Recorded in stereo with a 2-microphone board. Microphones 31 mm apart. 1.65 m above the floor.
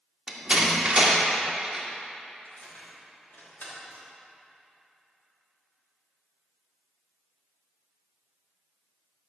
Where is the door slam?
25° right (ahead or behind), 2 m.